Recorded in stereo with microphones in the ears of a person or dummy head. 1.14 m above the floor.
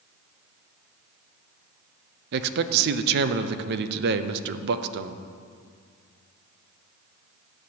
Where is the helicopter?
No helicopter in this recording.